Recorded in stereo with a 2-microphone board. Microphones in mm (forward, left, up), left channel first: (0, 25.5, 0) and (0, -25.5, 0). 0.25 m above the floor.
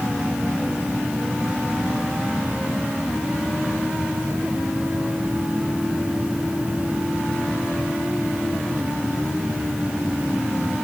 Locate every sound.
Only background noise.